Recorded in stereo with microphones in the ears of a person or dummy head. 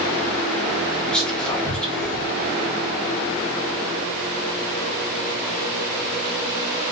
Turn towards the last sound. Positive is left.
turn(degrees=5)  # may be behind; listen again after turning